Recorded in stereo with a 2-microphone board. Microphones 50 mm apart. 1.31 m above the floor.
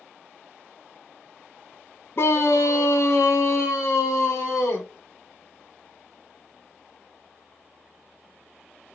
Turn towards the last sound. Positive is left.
turn(degrees=60)  # may be behind; listen again after turning